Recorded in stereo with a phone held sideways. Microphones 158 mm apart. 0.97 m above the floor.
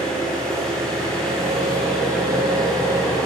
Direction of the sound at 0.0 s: 5° left (ahead or behind).